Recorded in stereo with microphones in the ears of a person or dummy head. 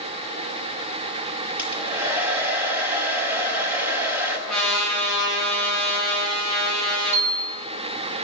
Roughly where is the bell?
Centre.